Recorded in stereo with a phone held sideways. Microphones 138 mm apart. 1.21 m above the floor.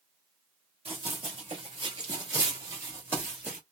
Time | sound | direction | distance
0.8 | running footsteps | 45° right (ahead or behind) | 1.6 m